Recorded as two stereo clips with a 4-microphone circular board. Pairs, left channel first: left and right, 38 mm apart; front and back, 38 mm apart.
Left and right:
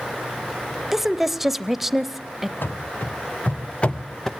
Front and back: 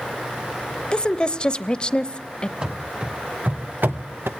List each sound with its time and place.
0.9 s a woman speaking: 15° right, 1.0 m
2.6 s running footsteps: 115° left, 2.5 m; by 4.3 s 170° left, 1.5 m